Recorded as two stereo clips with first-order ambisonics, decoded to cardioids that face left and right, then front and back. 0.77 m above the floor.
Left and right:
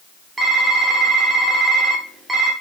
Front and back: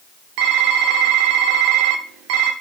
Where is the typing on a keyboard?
170° right, 0.9 m.